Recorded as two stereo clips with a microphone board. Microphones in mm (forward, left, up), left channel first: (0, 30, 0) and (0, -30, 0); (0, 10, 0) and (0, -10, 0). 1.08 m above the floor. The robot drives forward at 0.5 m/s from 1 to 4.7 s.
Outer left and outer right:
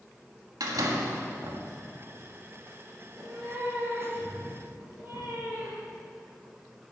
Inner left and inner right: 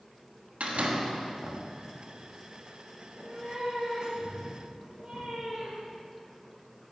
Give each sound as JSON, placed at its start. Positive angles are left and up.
{"t": 0.6, "sound": "a door slam", "side_deg": -80, "distance_m": 1.4}
{"t": 3.0, "sound": "a cat meowing", "side_deg": -45, "distance_m": 3.5}